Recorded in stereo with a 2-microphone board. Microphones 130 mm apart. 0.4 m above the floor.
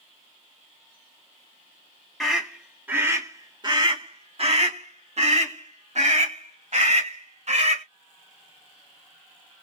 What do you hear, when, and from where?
2.2 s a scream: centre (ahead or behind), 1.1 m; by 7.8 s 60° right (ahead or behind), 2.5 m